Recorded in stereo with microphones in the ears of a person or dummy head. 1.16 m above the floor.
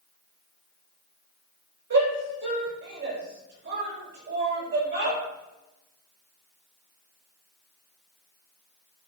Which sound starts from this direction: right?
A shout, at 1.9 s.